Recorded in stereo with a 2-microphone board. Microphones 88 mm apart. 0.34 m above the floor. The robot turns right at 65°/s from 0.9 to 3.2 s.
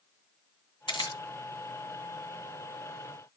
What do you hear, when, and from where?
0.9 s a camera shutter: 60° left (ahead or behind), 2.5 m; by 1.2 s 45° left (ahead or behind), 2.5 m